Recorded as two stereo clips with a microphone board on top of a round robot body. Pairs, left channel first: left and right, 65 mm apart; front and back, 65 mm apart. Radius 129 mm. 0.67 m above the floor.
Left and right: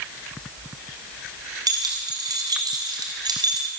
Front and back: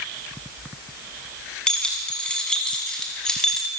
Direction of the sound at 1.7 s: 75° right.